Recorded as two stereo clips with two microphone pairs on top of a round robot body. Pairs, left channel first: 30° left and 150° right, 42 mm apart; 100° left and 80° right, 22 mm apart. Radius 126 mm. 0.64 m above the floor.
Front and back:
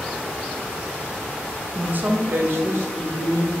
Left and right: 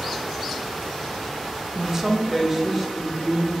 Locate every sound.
1.8 s a woman speaking: 130° right, 0.6 m; by 3.5 s 165° right, 1.6 m